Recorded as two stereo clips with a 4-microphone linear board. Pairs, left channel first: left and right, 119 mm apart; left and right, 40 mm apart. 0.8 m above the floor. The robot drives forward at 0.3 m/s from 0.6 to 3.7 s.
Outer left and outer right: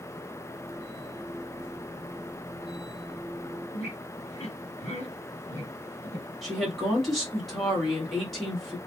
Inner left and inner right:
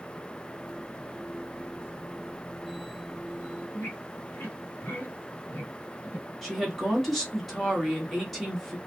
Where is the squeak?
60° left (ahead or behind), 1.2 m.